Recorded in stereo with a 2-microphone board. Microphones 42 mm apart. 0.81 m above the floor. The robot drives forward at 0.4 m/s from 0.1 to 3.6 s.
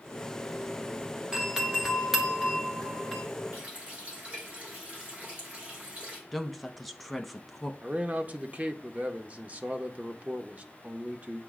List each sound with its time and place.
1.3 s a doorbell: 15° right (ahead or behind), 1.0 m; by 3.2 s 10° right (ahead or behind), 1.5 m
3.5 s a running tap: 40° right (ahead or behind), 2 m
6.3 s a woman speaking: centre (ahead or behind), 0.7 m
7.8 s a man speaking: 40° right (ahead or behind), 0.6 m